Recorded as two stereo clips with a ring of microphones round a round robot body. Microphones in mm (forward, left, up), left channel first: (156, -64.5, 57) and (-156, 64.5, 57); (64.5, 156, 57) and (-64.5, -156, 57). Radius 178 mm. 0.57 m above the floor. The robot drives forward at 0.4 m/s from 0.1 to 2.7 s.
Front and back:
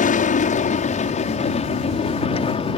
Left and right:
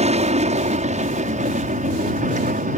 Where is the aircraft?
65° right; by 2.8 s 75° right.